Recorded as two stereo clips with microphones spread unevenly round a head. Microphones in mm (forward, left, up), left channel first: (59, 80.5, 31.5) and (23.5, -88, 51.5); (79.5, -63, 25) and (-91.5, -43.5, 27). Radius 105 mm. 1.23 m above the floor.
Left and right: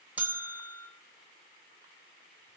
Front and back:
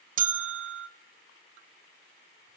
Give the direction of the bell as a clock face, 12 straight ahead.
6 o'clock.